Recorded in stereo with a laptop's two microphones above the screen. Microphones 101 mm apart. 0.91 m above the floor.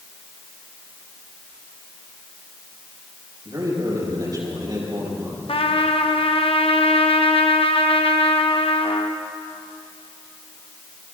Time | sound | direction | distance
3.5 | a man speaking | 40° right (ahead or behind) | 6.5 m
5.5 | a trumpet | 65° left (ahead or behind) | 0.8 m